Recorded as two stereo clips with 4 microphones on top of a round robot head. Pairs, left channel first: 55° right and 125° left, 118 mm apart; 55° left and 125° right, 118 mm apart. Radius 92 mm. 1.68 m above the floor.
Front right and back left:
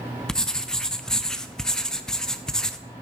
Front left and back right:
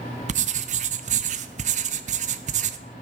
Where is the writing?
140° right, 0.7 m.